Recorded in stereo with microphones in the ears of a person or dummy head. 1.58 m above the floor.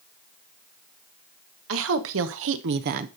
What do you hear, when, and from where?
1.7 s a woman speaking: 75° right (ahead or behind), 1.6 m; by 3.1 s 40° right (ahead or behind), 0.6 m